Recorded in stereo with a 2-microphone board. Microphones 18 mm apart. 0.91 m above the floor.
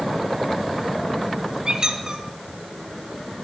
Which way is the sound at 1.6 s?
35° right (ahead or behind).